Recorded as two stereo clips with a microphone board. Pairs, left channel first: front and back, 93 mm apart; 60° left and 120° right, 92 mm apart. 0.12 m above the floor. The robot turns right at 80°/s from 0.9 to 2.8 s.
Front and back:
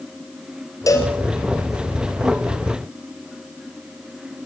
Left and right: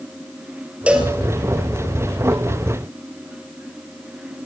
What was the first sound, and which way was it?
A cowbell, 45° right.